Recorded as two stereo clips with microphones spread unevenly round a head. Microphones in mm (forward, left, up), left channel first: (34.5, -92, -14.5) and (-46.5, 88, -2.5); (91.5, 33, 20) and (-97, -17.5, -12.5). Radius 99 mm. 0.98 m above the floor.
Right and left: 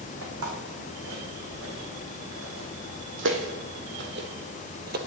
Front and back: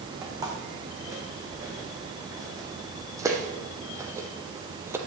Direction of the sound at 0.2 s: 120° left.